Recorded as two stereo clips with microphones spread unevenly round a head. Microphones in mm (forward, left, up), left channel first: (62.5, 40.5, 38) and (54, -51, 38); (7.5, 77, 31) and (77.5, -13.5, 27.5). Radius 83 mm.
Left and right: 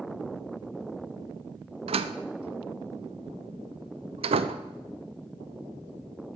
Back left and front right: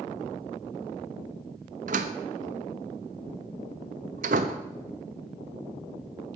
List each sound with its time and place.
1.9 s a door slam: 80° right, 0.9 m